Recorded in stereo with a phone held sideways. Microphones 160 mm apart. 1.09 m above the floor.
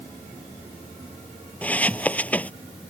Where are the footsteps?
10° left (ahead or behind).